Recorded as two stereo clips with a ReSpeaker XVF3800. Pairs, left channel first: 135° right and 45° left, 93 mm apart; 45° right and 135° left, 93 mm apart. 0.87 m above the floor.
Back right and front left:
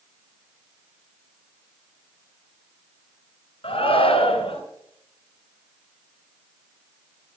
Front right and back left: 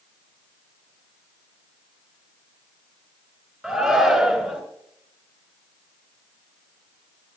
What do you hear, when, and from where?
3.6 s a shout: 140° right, 4 m